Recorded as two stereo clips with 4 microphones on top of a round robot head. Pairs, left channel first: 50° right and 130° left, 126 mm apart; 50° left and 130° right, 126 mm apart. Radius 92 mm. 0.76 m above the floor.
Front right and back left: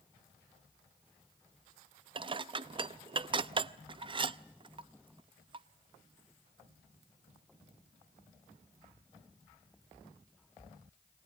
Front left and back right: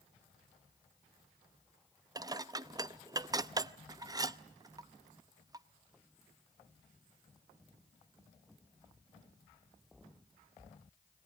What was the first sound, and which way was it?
Dishes clattering, 175° left.